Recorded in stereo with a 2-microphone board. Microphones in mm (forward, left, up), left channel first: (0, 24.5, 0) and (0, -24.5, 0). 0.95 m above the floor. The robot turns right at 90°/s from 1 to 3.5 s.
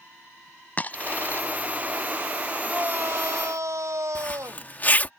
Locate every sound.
0.8 s a dropped coin: 30° left (ahead or behind); by 1.4 s 50° left (ahead or behind)
2.7 s a shout: 155° right; by 4.7 s 80° right
4.2 s a zipper: 35° left (ahead or behind)